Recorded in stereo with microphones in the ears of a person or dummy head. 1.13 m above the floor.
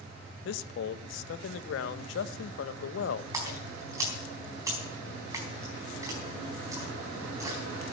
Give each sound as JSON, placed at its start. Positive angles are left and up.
{"t": 0.5, "sound": "a man speaking", "side_deg": 75, "distance_m": 0.9}
{"t": 3.3, "sound": "a splash", "side_deg": -10, "distance_m": 4.0}